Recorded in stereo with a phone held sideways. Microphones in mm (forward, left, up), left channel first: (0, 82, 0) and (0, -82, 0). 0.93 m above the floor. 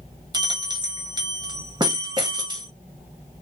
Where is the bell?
30° right (ahead or behind), 0.8 m.